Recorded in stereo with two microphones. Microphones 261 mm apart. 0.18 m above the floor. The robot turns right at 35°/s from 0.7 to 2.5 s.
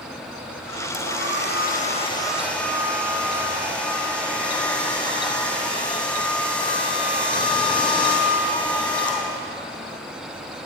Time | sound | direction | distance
0.9 | a hair dryer | 120° left | 4 m